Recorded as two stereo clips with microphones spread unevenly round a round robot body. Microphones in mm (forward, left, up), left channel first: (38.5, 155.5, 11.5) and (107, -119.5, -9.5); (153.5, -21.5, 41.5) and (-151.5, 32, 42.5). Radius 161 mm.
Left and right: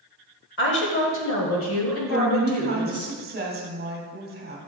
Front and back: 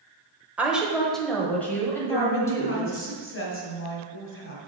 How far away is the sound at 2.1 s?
About 1.7 m.